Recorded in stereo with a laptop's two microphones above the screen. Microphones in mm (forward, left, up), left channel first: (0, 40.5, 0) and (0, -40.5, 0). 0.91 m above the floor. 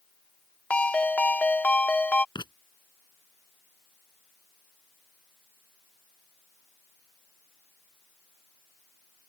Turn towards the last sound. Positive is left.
turn(degrees=70)  # may be behind; listen again after turning